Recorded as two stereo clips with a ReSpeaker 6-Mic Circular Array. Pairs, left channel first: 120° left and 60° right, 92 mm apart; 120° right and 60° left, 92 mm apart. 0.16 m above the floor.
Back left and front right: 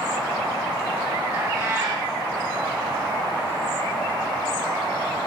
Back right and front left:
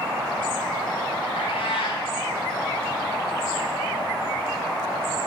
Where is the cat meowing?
125° right, 6 m.